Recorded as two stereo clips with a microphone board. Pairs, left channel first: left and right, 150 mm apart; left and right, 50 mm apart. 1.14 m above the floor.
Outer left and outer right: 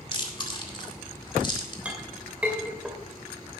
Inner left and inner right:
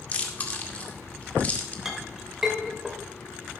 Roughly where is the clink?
Centre.